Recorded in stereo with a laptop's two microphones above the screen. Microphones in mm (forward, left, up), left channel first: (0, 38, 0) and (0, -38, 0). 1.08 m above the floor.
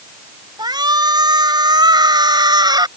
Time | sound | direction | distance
0.6 | a shout | 70° right (ahead or behind) | ?